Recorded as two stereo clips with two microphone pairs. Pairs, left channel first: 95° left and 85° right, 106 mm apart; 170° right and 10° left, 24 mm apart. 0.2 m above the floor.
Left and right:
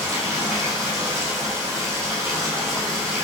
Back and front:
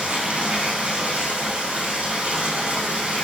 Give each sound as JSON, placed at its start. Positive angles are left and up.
{"t": 0.0, "sound": "running water", "azimuth_deg": -25, "distance_m": 5.5}